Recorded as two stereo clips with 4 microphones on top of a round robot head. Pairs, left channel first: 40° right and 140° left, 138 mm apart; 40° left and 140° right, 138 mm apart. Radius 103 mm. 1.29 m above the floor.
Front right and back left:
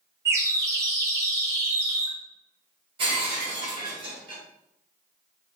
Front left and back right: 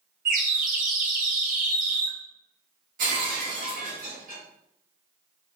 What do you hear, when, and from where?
0.2 s a bird: 155° right, 0.6 m
3.0 s breaking glass: 170° right, 1.7 m